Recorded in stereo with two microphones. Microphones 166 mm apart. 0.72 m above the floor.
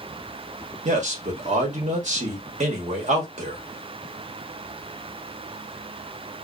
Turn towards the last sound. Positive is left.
turn(degrees=-45)  # may be behind; listen again after turning